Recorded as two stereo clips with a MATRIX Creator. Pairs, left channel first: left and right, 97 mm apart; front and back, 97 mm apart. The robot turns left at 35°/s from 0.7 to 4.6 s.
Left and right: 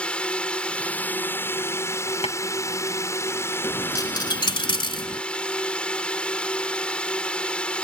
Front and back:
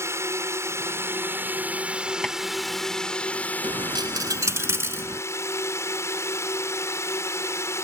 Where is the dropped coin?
150° left; by 5.2 s 115° left.